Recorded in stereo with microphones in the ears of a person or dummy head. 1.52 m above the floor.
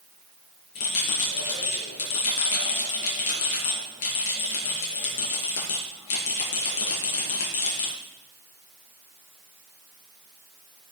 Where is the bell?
75° left (ahead or behind), 6.5 m.